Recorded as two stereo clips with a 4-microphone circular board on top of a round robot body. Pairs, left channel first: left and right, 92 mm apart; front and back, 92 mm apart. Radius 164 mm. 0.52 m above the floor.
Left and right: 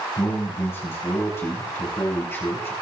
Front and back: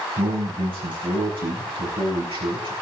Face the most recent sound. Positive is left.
turn(degrees=155)